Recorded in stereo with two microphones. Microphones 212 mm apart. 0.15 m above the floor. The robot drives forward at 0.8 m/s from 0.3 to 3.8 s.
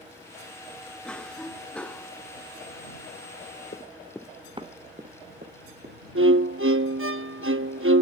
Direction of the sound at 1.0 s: 5° left (ahead or behind).